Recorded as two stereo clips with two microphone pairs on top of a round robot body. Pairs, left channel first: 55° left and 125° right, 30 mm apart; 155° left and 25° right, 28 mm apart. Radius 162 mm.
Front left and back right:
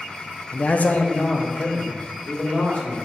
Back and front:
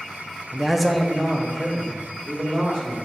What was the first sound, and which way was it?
A man speaking, 30° left.